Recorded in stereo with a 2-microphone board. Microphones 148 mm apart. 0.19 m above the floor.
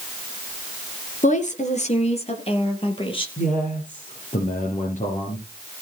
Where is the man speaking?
55° left (ahead or behind), 4 m.